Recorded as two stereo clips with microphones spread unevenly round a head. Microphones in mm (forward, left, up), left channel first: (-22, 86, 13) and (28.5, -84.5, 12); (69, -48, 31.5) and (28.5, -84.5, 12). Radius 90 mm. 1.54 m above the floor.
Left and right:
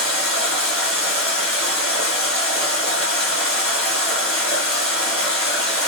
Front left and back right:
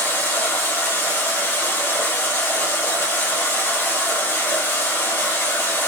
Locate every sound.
0.0 s running water: 25° left, 1.1 m